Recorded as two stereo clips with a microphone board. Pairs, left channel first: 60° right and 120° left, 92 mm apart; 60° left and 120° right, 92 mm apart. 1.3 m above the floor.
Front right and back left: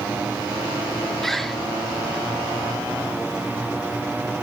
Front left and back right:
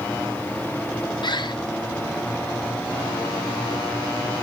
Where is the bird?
30° left, 1.0 m.